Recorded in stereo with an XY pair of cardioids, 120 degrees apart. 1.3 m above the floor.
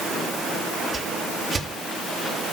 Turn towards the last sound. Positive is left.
turn(degrees=-25)